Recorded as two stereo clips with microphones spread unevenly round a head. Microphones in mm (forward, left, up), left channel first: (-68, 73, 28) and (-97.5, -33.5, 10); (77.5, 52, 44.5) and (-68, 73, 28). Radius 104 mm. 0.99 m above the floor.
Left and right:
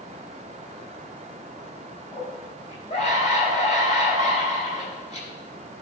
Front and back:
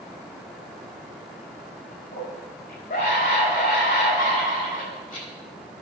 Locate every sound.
2.1 s a scream: 20° left, 7 m